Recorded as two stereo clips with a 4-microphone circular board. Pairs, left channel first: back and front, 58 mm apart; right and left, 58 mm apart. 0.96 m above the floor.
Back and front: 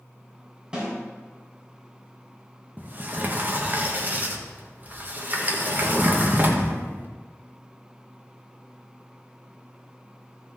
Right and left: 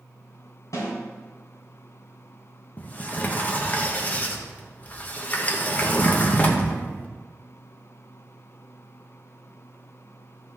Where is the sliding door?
40° right, 1.2 m.